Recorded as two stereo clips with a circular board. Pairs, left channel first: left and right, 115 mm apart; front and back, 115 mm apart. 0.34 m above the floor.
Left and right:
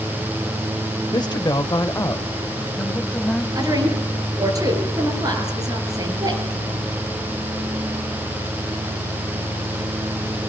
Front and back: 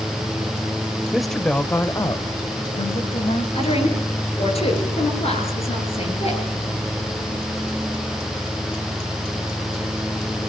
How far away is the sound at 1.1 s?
About 1.4 m.